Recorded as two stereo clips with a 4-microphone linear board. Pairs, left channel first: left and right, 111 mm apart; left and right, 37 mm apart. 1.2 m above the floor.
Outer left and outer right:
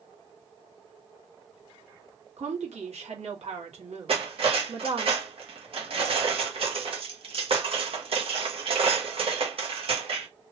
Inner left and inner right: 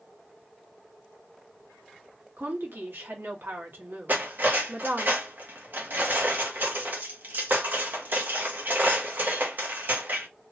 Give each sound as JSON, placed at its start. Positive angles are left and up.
{"t": 2.4, "sound": "a woman speaking", "side_deg": -75, "distance_m": 1.2}
{"t": 4.1, "sound": "cutlery clinking", "side_deg": -60, "distance_m": 0.8}